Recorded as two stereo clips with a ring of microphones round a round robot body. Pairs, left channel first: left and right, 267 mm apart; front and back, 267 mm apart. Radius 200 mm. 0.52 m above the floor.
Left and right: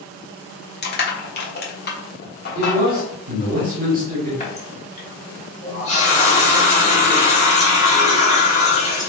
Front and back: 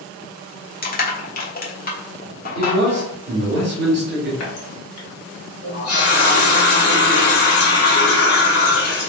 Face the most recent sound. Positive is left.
turn(degrees=25)